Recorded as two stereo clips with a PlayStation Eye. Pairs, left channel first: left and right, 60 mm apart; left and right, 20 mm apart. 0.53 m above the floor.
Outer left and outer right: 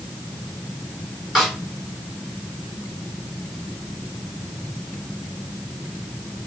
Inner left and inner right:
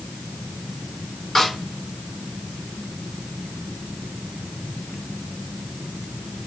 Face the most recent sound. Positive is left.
turn(degrees=-5)  # may be behind; listen again after turning